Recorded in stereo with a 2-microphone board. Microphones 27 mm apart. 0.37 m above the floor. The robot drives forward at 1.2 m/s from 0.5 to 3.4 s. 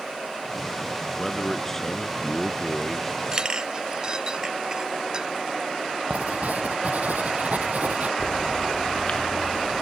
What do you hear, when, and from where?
1.2 s a man speaking: 15° left (ahead or behind); by 3.2 s 10° left (ahead or behind)
3.3 s a clink: 30° right (ahead or behind)
6.1 s writing: 80° right
8.2 s a bird: 45° left (ahead or behind)